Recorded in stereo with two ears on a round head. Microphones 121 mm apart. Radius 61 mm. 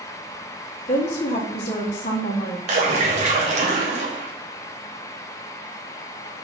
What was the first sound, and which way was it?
A woman speaking, 50° left (ahead or behind).